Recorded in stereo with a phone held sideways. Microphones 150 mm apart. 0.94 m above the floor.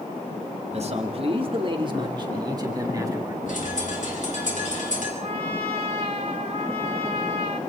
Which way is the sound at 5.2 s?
50° right (ahead or behind).